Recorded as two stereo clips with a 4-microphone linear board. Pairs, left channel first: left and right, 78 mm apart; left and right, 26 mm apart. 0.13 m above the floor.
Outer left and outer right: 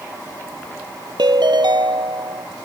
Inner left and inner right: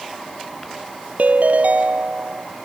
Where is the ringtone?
70° right (ahead or behind).